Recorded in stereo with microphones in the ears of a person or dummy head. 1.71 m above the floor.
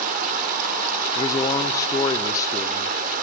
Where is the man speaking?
25° left (ahead or behind), 0.6 m.